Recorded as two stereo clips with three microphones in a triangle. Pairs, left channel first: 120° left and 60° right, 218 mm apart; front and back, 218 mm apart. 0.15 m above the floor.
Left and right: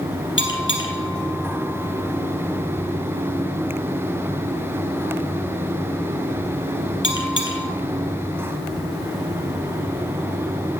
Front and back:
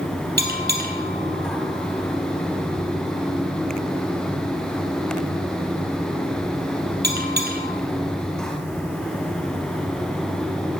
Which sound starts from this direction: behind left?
A bell, at 0.4 s.